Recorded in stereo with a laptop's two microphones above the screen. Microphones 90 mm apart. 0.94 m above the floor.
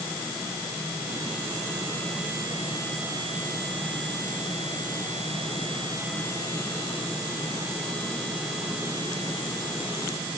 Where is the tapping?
No tapping in this recording.